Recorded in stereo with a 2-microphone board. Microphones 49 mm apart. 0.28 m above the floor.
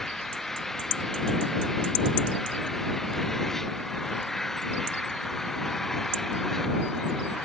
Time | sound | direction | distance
0.0 | an engine running | 10° left (ahead or behind) | ?